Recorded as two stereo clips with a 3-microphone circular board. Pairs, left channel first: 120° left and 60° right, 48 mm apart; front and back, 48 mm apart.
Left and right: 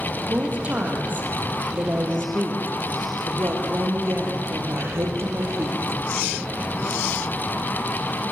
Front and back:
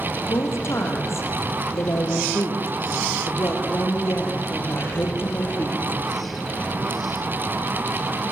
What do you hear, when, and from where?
0.3 s a woman speaking: 5° right, 6 m; by 6.0 s 40° right, 5.5 m